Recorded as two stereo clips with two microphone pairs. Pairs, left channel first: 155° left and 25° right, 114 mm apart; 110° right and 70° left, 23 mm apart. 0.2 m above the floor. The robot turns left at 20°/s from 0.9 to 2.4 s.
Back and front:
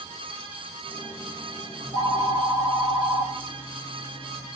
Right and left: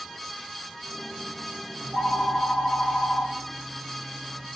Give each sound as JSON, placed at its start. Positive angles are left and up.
{"t": 1.8, "sound": "a phone ringing", "azimuth_deg": 25, "distance_m": 1.8}